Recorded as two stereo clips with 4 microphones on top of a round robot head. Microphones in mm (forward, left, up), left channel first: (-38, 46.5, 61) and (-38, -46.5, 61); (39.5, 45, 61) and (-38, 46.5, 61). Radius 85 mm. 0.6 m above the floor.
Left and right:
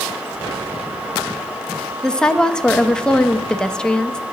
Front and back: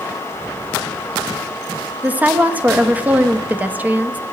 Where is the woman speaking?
160° left, 0.7 m.